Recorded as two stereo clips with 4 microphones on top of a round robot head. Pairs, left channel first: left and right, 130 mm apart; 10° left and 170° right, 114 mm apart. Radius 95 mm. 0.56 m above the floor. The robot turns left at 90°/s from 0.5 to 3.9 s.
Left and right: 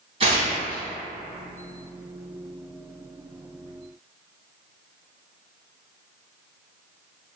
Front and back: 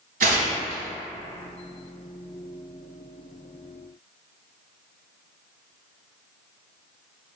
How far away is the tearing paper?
About 0.8 m.